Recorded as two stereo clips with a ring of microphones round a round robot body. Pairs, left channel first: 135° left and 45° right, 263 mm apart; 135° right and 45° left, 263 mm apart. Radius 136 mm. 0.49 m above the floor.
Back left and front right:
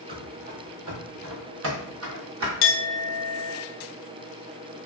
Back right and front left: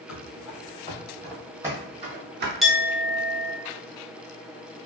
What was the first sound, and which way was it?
Running footsteps, 100° right.